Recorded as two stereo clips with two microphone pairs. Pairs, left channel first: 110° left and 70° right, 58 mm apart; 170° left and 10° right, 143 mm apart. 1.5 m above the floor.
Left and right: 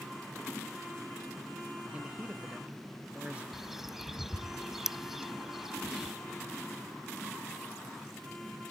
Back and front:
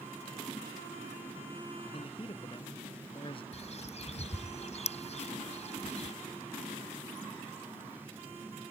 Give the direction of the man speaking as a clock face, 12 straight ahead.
5 o'clock.